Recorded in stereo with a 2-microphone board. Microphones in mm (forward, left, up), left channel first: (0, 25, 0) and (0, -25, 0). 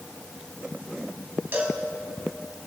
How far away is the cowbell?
About 1.8 m.